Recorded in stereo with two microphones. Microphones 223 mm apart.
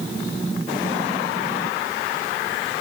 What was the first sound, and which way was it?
Only background noise.